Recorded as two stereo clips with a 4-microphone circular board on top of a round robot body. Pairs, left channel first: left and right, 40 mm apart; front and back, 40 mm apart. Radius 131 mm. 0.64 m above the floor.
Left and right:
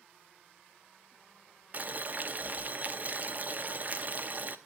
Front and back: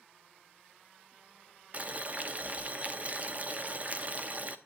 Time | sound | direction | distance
1.7 | boiling | 135° right | 1.0 m